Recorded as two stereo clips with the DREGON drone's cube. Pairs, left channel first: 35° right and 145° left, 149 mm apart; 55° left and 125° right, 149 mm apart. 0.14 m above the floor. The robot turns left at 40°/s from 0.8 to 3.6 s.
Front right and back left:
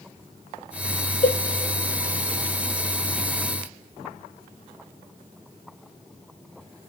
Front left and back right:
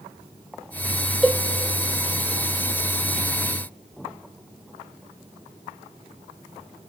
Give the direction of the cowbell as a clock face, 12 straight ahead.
1 o'clock.